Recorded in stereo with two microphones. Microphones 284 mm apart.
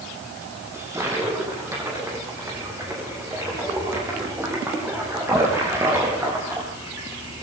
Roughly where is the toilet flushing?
Centre.